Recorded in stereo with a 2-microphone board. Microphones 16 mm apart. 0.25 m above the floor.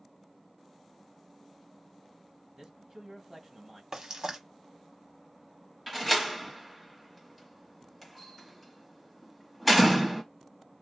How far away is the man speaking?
About 1.2 m.